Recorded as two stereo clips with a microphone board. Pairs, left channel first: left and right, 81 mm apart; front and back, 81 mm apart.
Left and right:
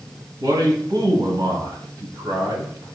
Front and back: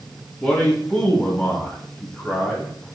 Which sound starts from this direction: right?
A man speaking, at 0.4 s.